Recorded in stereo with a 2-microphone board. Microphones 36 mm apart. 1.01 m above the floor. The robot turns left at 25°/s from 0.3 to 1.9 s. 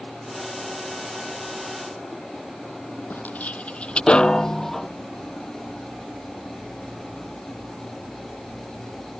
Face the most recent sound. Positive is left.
turn(degrees=5)  # may be behind; listen again after turning